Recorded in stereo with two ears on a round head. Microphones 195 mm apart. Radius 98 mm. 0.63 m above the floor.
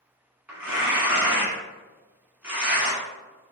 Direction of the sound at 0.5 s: 10° right (ahead or behind).